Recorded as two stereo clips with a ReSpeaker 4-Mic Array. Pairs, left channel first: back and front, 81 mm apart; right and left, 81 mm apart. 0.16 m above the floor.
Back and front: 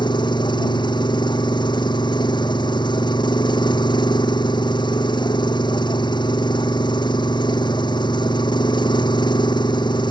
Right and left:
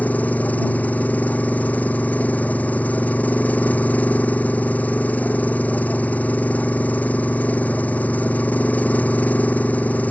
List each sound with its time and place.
0.0 s an engine running: 160° right